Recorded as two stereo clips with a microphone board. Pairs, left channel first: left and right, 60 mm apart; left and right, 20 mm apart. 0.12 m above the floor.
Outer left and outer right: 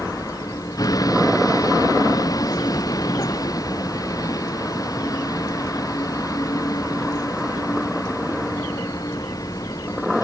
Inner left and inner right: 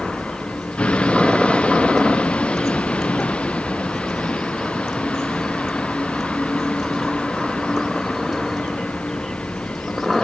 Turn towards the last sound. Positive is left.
turn(degrees=80)